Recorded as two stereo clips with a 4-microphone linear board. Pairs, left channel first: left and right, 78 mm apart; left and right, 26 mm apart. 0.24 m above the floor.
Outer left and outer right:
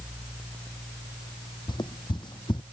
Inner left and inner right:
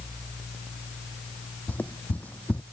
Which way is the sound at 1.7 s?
70° left (ahead or behind).